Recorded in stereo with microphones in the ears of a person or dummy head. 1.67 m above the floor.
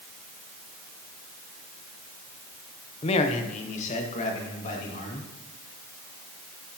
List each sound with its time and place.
3.0 s a man speaking: 35° left (ahead or behind), 0.8 m; by 5.3 s 40° left (ahead or behind), 3 m